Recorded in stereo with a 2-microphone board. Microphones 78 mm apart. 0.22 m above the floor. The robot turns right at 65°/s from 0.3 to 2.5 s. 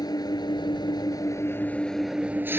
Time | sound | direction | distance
0.0 | an engine running | 65° left | ?